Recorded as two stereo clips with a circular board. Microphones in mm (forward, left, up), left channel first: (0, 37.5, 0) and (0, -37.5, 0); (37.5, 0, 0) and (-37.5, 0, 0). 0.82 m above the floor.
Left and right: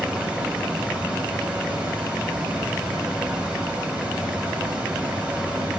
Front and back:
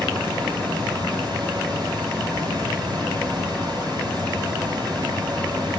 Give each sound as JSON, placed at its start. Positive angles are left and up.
{"t": 0.0, "sound": "running water", "azimuth_deg": -165, "distance_m": 5.0}